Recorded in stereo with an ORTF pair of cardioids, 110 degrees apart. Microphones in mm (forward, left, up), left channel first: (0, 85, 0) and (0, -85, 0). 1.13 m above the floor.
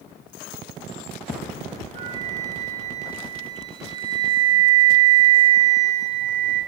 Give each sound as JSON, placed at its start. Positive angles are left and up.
{"t": 1.9, "sound": "a flute", "azimuth_deg": -60, "distance_m": 5.5}